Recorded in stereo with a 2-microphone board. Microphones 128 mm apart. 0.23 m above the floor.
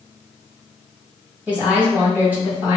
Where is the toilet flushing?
No toilet flushing in this recording.